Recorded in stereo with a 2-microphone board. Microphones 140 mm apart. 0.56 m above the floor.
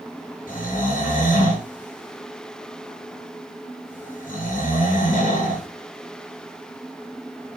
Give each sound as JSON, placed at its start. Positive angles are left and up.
{"t": 0.5, "sound": "snoring", "side_deg": 85, "distance_m": 5.5}